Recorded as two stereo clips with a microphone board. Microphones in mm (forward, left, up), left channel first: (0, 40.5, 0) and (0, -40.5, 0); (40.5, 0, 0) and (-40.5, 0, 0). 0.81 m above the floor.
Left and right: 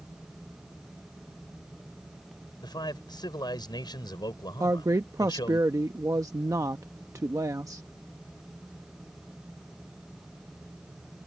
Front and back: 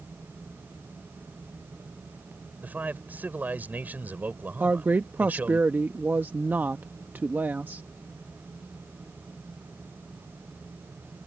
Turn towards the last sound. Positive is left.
turn(degrees=-120)